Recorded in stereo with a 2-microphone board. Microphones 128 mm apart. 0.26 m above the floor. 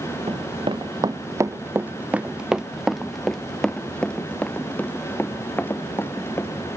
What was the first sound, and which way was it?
Running footsteps, 50° right (ahead or behind).